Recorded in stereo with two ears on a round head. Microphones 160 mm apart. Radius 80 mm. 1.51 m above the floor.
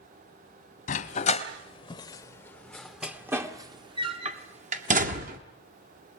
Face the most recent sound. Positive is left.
turn(degrees=-50)  # may be behind; listen again after turning